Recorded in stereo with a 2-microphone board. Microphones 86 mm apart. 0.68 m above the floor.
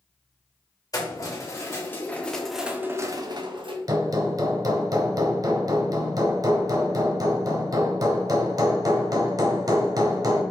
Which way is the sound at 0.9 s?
40° left (ahead or behind).